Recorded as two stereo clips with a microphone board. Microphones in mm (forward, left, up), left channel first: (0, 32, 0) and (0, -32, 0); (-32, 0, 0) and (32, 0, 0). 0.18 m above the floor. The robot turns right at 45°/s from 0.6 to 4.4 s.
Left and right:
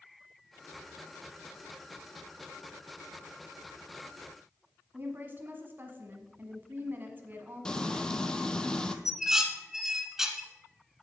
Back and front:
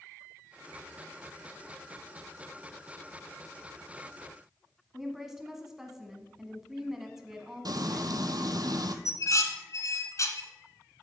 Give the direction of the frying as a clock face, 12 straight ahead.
12 o'clock.